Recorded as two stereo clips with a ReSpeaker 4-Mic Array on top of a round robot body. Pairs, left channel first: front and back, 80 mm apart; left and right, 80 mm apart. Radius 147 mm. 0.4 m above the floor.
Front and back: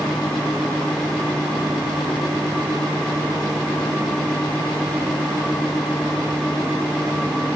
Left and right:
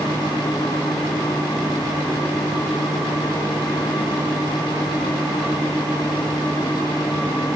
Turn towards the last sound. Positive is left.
No sound to turn to.